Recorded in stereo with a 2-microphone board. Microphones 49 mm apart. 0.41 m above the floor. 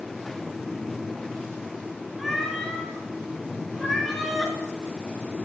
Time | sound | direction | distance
2.2 | a cat meowing | 5° left (ahead or behind) | 3.5 m